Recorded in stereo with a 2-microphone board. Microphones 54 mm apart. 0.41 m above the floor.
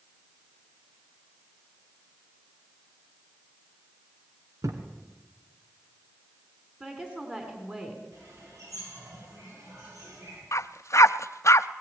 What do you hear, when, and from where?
4.6 s a thud: 75° right (ahead or behind), 2.5 m
6.8 s a woman speaking: 20° right (ahead or behind), 4 m
8.1 s a bird: 75° right (ahead or behind), 9.5 m
10.5 s a dog barking: 60° left (ahead or behind), 0.6 m